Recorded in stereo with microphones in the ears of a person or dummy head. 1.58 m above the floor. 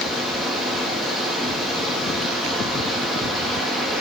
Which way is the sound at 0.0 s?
5° right (ahead or behind).